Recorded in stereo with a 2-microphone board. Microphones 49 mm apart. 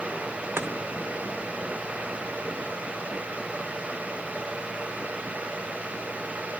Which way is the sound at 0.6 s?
50° right (ahead or behind).